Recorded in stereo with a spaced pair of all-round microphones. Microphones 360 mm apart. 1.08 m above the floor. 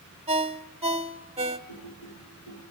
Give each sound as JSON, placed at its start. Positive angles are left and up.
{"t": 0.3, "sound": "a ringtone", "side_deg": -15, "distance_m": 1.5}
{"t": 1.7, "sound": "typing on a keyboard", "side_deg": 85, "distance_m": 9.0}